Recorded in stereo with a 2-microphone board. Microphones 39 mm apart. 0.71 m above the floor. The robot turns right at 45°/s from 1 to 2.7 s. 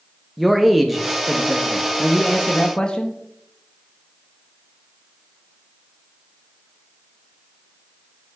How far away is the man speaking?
About 0.6 m.